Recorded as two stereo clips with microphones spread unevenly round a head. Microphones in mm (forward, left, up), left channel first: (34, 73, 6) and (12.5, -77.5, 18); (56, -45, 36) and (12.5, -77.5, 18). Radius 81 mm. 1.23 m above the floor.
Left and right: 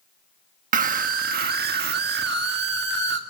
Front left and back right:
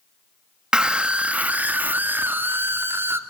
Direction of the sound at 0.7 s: 65° right.